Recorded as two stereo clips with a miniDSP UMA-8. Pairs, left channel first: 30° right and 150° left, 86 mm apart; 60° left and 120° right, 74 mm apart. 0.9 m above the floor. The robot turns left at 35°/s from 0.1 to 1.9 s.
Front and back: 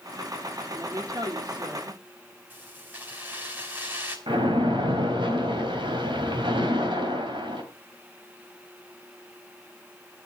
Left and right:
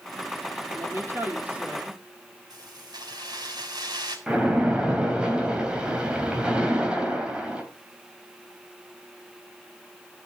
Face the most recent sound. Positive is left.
turn(degrees=165)